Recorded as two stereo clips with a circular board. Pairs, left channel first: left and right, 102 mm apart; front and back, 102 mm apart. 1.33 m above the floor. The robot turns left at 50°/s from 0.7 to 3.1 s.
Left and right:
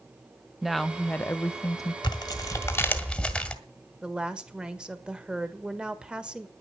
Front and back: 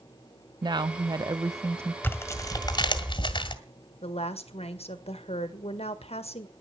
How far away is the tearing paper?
About 1.5 m.